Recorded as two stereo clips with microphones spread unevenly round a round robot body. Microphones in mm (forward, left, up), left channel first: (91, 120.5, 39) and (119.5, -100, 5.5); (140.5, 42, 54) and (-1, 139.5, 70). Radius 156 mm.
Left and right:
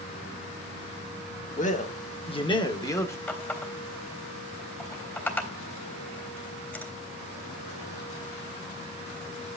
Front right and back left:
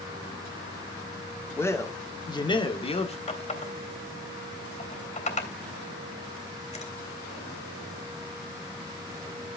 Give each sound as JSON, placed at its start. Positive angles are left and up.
{"t": 1.6, "sound": "a man speaking", "azimuth_deg": 40, "distance_m": 2.0}
{"t": 3.3, "sound": "a running tap", "azimuth_deg": 15, "distance_m": 3.5}